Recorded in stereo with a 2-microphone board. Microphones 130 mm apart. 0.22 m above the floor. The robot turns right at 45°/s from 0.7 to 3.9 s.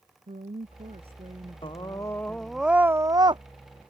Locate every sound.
0.3 s a woman speaking: 70° right; by 2.6 s 15° left
1.6 s a scream: 140° left; by 3.4 s 140° right